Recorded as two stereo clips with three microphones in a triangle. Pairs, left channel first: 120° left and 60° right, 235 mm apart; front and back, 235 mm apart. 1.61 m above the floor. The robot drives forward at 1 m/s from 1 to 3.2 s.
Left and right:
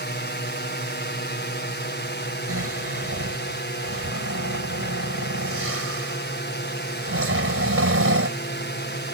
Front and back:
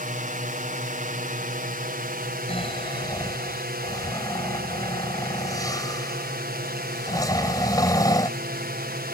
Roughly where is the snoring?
Ahead right.